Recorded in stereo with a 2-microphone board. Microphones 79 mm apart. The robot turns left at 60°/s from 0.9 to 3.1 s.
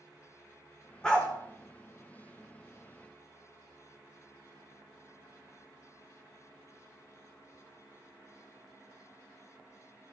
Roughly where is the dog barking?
Centre.